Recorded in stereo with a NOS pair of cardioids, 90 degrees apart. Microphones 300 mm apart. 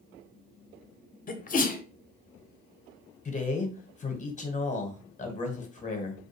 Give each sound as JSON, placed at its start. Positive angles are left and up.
{"t": 1.3, "sound": "a sneeze", "azimuth_deg": 30, "distance_m": 0.7}
{"t": 3.2, "sound": "a man speaking", "azimuth_deg": 25, "distance_m": 0.9}